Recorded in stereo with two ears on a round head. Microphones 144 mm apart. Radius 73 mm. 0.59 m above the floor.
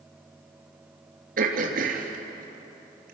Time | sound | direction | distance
1.4 | throat clearing | 60° right (ahead or behind) | 3 m